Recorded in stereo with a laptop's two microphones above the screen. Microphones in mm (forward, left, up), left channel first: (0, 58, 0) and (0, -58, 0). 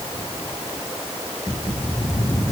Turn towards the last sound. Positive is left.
No sound to turn to.